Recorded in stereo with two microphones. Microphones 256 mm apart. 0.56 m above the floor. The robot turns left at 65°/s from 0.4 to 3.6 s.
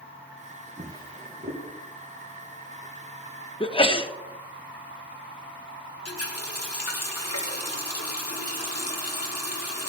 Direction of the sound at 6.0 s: 70° left (ahead or behind).